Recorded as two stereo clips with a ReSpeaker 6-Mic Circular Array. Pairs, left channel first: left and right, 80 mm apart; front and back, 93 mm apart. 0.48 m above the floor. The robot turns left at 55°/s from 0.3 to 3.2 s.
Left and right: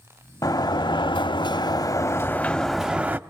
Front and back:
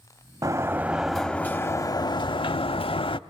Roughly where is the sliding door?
Behind left.